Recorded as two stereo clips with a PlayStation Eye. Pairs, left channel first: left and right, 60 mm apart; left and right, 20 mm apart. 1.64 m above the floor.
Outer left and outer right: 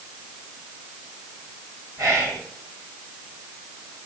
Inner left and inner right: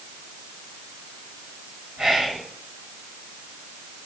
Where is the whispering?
55° right (ahead or behind), 1.2 m.